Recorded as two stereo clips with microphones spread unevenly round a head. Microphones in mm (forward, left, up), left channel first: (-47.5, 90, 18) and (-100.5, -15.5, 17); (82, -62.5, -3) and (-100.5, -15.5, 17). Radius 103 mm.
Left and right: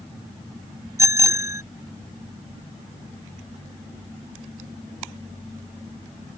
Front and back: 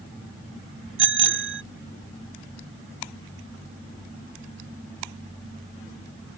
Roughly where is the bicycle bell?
Behind.